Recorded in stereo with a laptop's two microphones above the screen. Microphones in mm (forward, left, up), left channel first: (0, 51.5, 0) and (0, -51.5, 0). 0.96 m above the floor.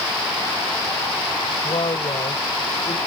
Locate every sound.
1.6 s a woman speaking: 60° left (ahead or behind)